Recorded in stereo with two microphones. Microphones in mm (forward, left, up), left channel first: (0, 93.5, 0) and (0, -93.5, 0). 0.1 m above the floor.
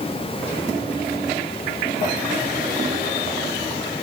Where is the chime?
No chime in this recording.